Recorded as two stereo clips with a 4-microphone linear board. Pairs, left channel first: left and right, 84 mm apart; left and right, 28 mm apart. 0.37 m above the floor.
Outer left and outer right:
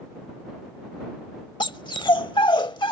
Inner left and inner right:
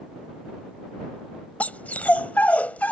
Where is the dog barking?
65° left (ahead or behind).